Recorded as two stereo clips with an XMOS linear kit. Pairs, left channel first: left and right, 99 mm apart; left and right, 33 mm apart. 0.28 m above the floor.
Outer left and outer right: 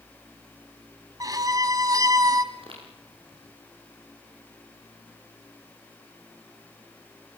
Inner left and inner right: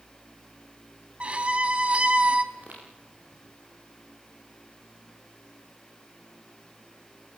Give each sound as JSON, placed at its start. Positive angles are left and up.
{"t": 1.2, "sound": "a violin", "side_deg": -35, "distance_m": 1.9}
{"t": 2.5, "sound": "footsteps", "side_deg": -65, "distance_m": 10.0}